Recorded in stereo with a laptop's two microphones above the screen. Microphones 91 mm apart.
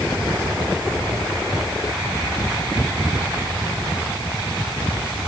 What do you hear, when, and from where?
Only background noise.